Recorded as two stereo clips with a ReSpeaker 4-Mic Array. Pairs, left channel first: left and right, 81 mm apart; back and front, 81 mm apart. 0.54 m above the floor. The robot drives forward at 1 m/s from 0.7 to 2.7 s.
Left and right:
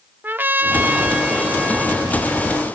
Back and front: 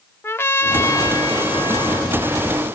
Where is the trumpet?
140° right, 0.6 m; by 2.7 s 175° right, 2.5 m.